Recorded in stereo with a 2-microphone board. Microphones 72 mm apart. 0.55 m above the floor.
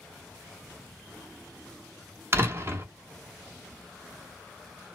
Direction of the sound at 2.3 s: 35° right (ahead or behind).